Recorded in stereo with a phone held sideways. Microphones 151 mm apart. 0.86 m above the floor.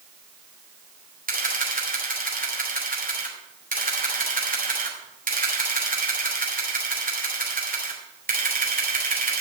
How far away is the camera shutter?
About 3 m.